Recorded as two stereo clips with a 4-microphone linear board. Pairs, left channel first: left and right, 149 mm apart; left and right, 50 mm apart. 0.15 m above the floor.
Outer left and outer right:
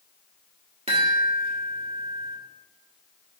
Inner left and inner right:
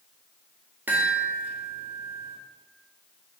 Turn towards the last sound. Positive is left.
turn(degrees=-40)  # may be behind; listen again after turning